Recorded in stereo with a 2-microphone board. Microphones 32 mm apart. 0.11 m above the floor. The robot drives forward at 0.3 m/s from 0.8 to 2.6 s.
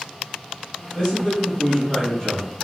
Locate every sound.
0.9 s a man speaking: 25° left (ahead or behind), 1.5 m; by 2.5 s 30° left (ahead or behind), 1.4 m